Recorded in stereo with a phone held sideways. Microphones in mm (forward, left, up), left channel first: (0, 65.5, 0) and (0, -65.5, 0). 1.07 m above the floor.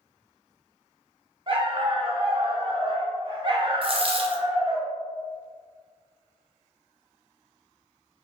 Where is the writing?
No writing in this recording.